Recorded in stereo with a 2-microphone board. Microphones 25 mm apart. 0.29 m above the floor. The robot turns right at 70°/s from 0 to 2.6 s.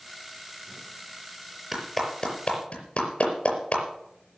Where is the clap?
15° right (ahead or behind), 5 m; by 3.8 s 50° left (ahead or behind), 5 m.